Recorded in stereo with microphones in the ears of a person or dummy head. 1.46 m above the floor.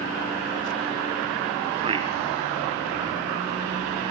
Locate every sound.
1.8 s a man speaking: 35° right (ahead or behind), 0.8 m